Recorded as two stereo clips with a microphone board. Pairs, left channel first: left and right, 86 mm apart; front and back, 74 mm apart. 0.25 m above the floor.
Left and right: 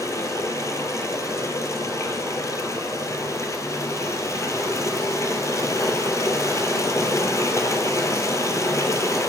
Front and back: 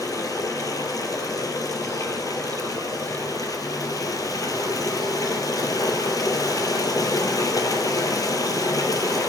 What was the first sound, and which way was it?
Running water, 35° left.